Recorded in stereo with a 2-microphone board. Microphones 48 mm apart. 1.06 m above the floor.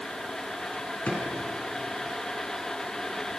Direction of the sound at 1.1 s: 40° left (ahead or behind).